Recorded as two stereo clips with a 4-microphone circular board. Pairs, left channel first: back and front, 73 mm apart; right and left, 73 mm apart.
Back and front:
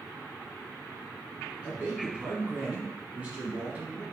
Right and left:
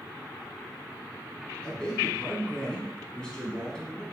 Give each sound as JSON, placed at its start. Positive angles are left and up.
{"t": 1.6, "sound": "a man speaking", "azimuth_deg": -30, "distance_m": 1.7}